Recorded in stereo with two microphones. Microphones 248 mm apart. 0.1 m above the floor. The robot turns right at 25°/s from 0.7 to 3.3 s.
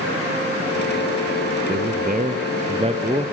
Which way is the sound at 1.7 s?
65° right.